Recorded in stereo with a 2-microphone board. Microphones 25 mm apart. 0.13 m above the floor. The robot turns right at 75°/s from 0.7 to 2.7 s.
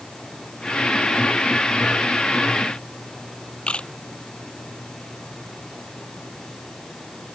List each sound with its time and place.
3.7 s a camera shutter: 55° left (ahead or behind)